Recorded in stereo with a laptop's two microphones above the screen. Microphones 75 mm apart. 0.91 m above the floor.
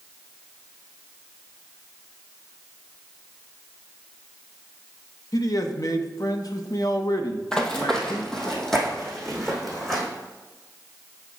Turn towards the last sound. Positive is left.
turn(degrees=5)  # may be behind; listen again after turning